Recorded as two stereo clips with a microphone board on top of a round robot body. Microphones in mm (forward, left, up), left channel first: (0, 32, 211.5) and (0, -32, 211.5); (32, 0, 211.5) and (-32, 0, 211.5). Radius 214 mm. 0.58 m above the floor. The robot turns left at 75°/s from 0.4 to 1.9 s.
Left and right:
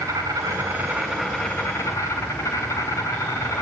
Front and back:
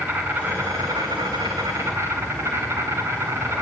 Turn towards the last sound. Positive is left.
turn(degrees=130)